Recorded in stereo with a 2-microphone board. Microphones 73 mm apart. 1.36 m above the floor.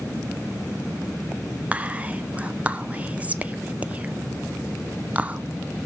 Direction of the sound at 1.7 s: 20° right (ahead or behind).